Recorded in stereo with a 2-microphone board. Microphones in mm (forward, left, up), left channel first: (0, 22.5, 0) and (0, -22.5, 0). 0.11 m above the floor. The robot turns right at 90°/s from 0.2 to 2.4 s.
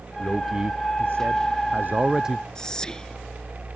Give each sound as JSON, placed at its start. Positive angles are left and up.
{"t": 0.2, "sound": "a man speaking", "azimuth_deg": 160}
{"t": 2.5, "sound": "whispering", "side_deg": 15}